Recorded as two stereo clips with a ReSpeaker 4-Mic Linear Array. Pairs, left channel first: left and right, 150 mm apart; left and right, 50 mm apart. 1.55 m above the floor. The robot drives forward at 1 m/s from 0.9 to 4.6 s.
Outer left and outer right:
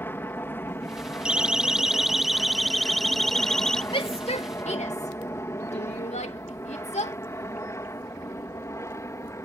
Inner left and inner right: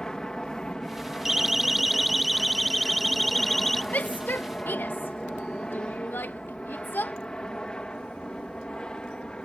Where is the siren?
5° right (ahead or behind); by 3.8 s 5° left (ahead or behind).